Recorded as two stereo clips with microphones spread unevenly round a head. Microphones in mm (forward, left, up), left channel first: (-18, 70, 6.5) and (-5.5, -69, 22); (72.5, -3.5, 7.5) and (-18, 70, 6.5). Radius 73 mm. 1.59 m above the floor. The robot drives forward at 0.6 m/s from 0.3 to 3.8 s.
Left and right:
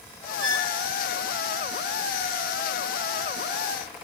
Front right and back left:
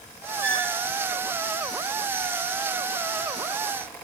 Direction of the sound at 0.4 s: 120° right.